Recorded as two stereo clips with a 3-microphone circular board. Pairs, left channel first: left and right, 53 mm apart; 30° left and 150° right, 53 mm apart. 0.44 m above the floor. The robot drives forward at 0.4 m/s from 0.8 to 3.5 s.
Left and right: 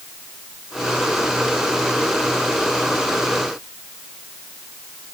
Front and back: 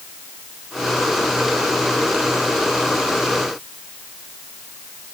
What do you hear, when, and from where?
Only background noise.